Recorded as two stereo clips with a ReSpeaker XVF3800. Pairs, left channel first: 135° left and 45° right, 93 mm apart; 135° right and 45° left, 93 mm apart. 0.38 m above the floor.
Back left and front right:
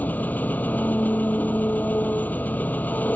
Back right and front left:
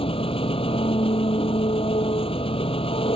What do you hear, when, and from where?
0.0 s an engine running: 150° right